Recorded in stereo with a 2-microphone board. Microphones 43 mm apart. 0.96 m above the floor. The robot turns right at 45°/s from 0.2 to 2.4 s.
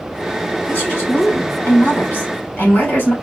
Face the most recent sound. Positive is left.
turn(degrees=120)